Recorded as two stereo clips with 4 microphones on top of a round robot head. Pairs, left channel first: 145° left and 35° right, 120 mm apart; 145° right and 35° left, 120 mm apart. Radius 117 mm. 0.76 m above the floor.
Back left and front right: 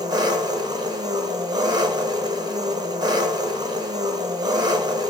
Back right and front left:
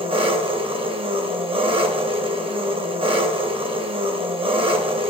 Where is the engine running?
10° left, 1.0 m.